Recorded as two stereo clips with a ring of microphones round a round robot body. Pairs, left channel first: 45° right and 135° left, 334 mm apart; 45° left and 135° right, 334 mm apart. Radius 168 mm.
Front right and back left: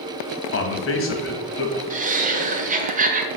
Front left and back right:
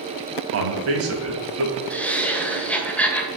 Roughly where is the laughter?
Behind left.